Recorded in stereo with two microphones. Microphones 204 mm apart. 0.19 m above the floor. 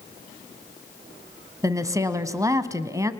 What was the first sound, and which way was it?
A woman speaking, 15° right (ahead or behind).